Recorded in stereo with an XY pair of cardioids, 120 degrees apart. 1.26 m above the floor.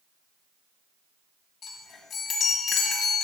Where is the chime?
60° left, 2.0 m.